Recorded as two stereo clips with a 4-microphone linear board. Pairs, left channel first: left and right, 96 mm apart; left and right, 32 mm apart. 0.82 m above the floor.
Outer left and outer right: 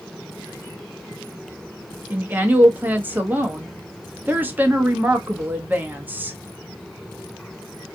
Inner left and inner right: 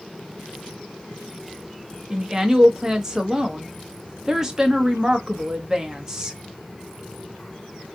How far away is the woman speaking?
About 0.6 m.